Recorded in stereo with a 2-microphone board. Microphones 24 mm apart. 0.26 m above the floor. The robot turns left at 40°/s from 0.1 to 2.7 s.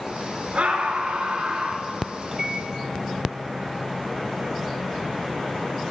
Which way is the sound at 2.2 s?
15° right (ahead or behind).